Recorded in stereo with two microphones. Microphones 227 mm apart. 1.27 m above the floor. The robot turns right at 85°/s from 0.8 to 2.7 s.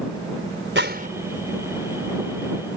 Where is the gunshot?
55° right (ahead or behind); by 1.1 s 30° right (ahead or behind).